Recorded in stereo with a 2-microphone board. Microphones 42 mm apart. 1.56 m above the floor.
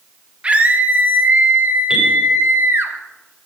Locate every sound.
0.4 s a scream: 25° right (ahead or behind), 1.8 m; by 2.9 s 65° right (ahead or behind), 2 m
1.9 s a bell: 10° right (ahead or behind), 5.5 m